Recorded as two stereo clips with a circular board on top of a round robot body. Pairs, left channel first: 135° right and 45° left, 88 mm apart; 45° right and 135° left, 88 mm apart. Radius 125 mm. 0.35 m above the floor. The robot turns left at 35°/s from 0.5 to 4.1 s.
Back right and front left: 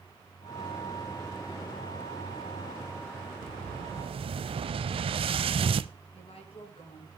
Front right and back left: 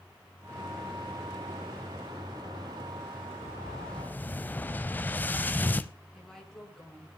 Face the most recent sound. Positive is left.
turn(degrees=-130)